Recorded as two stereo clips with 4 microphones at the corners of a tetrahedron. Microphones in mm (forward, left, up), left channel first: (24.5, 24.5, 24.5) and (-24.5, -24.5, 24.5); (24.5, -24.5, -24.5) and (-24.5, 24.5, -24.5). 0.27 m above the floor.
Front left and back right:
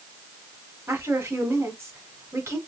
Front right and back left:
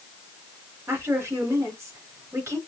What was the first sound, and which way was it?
A woman speaking, 175° right.